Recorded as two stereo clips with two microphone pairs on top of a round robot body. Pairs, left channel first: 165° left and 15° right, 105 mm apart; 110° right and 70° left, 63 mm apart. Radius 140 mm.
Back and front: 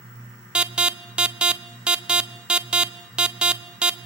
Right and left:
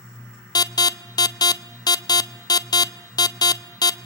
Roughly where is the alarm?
Right.